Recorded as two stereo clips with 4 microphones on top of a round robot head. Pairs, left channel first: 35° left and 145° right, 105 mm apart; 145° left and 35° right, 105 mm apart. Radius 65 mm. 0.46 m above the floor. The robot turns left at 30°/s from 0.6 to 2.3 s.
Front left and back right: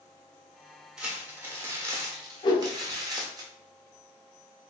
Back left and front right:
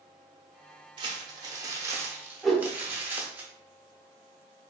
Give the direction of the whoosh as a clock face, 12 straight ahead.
10 o'clock.